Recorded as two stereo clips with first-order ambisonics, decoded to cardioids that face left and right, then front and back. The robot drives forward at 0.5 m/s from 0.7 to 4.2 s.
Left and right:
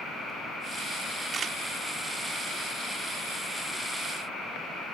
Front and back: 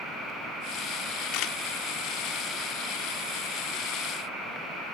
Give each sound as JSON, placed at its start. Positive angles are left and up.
{"t": 1.3, "sound": "a camera shutter", "azimuth_deg": -25}